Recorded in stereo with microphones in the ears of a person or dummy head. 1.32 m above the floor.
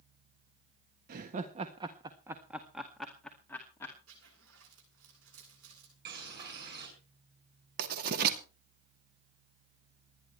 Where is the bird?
50° right (ahead or behind), 6 m.